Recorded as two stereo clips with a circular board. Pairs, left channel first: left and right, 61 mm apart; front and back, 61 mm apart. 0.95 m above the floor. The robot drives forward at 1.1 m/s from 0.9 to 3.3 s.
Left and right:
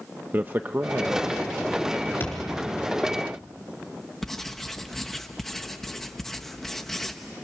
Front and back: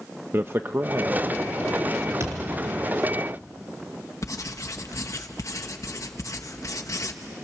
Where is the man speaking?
135° right, 0.6 m; by 3.1 s 175° right, 3 m.